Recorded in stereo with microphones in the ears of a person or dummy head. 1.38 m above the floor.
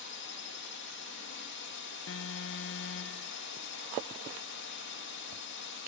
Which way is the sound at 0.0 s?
55° left (ahead or behind).